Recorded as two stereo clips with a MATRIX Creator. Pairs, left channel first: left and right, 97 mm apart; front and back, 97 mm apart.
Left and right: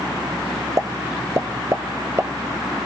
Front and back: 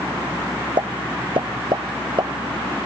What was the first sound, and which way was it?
A pop, 150° right.